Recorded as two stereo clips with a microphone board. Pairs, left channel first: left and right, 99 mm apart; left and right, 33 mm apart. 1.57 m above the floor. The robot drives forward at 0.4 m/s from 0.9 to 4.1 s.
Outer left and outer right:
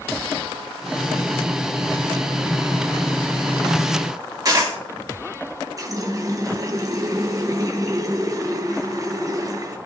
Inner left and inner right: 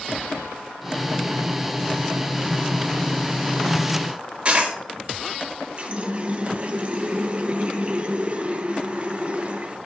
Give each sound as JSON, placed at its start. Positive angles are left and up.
{"t": 4.5, "sound": "a dropped coin", "side_deg": -35, "distance_m": 1.9}
{"t": 5.8, "sound": "a running tap", "side_deg": -35, "distance_m": 0.7}